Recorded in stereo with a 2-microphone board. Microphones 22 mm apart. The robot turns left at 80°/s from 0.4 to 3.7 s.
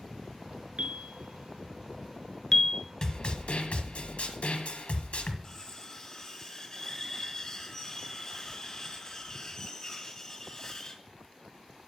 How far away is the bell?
About 0.9 m.